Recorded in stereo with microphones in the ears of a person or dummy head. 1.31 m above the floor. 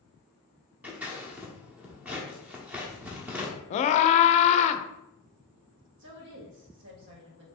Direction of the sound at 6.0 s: 70° right (ahead or behind).